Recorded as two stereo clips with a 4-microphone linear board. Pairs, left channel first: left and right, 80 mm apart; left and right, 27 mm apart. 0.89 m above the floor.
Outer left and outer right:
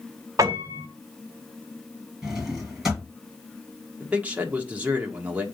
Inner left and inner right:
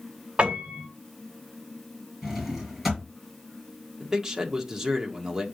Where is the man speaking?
15° right (ahead or behind), 1.5 m.